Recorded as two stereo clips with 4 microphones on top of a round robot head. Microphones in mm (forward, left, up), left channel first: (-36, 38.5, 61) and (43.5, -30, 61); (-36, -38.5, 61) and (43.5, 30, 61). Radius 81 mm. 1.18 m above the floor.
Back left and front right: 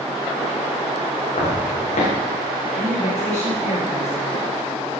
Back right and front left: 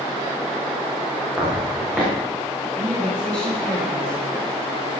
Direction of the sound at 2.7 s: 140° left.